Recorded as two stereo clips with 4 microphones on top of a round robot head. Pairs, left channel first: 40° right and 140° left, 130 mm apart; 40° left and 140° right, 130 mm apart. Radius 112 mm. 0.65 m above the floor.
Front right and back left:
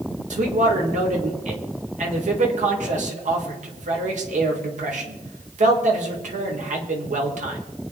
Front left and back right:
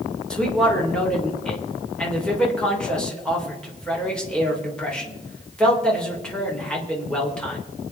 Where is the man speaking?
125° left, 3.5 m.